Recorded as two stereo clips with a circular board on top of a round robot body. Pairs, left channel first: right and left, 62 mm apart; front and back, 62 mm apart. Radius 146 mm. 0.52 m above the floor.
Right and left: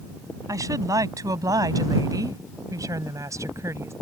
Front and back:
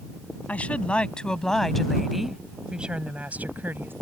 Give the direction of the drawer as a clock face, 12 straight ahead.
I don't hear a drawer.